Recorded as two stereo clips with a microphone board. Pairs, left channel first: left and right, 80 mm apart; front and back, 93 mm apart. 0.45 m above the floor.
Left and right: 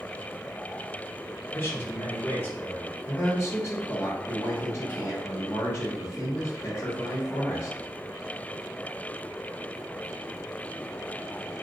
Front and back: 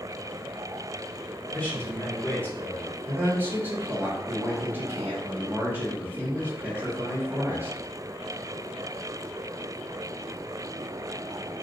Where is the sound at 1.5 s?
60° left, 1.2 m.